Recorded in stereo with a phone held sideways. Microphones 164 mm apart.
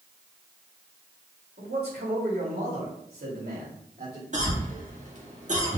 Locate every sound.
1.6 s a man speaking: 85° right, 3 m; by 4.2 s 60° right (ahead or behind), 3 m
4.3 s a cough: 50° right (ahead or behind), 1.7 m